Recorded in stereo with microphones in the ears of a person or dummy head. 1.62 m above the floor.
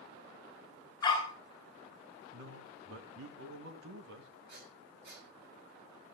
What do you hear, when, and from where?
1.0 s a dog barking: 30° left (ahead or behind), 9 m
2.3 s a man speaking: 75° right (ahead or behind), 2 m
4.5 s breathing: 65° right (ahead or behind), 6 m